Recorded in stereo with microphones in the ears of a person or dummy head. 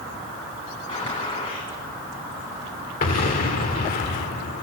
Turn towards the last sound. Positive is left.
turn(degrees=40)  # may be behind; listen again after turning